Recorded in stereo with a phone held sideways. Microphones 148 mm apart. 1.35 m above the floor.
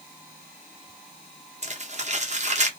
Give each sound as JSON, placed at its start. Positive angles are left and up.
{"t": 1.6, "sound": "crumpling", "side_deg": -50, "distance_m": 0.8}